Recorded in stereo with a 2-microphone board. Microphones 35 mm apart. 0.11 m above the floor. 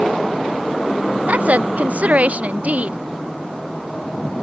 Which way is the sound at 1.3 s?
50° right (ahead or behind).